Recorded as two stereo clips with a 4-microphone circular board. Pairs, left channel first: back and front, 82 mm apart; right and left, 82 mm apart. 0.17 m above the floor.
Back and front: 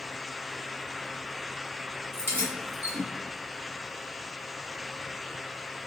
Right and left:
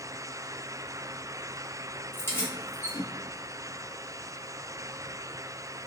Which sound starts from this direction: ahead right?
Keys jangling, at 2.1 s.